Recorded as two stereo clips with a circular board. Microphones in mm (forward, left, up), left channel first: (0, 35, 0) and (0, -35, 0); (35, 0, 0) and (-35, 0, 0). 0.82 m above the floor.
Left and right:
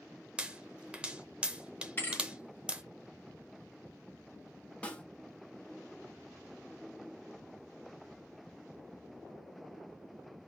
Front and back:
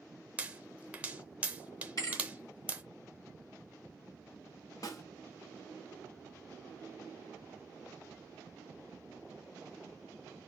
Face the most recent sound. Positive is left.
turn(degrees=25)